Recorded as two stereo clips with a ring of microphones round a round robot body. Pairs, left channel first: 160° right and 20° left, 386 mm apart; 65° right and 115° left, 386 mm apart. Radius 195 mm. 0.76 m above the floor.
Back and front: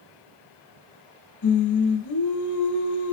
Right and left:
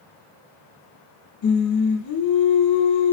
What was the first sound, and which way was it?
Singing, 115° right.